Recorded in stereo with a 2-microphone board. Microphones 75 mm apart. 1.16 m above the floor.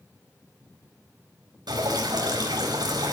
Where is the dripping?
80° right, 4.5 m.